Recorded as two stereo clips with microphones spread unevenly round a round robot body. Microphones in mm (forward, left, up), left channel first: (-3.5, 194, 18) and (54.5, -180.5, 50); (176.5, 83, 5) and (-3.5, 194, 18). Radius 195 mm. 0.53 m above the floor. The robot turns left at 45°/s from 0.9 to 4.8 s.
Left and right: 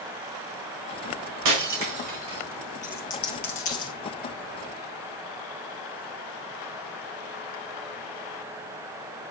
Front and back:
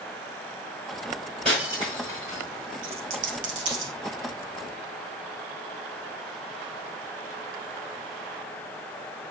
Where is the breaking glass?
120° right, 1.7 m; by 2.4 s 165° right, 1.7 m.